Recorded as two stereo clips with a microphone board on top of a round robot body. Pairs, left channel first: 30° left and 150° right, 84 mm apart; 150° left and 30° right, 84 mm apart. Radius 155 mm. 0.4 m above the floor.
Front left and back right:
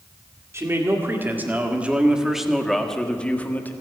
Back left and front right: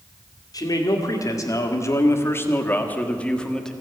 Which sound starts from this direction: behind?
A man speaking, at 0.5 s.